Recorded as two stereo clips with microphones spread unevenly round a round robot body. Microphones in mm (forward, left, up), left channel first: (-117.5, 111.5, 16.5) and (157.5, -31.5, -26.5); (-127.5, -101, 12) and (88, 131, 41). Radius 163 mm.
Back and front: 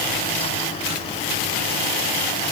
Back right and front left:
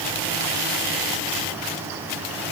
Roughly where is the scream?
No scream in this recording.